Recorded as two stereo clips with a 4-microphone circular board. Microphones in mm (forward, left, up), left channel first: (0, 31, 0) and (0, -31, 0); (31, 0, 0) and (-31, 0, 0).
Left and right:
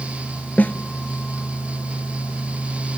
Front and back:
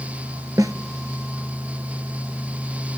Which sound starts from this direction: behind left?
A snare drum, at 0.6 s.